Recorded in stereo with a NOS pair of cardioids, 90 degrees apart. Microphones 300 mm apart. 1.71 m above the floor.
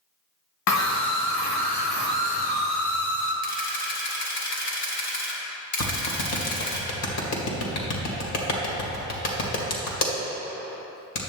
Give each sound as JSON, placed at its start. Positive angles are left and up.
{"t": 0.7, "sound": "a scream", "azimuth_deg": 65, "distance_m": 0.7}
{"t": 3.4, "sound": "a camera shutter", "azimuth_deg": 70, "distance_m": 2.0}
{"t": 5.8, "sound": "a clap", "azimuth_deg": 60, "distance_m": 2.0}